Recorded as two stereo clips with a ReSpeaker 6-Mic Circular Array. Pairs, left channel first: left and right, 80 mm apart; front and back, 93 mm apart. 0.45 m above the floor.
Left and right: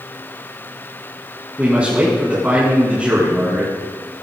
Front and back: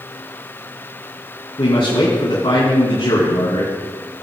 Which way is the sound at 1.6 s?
15° right.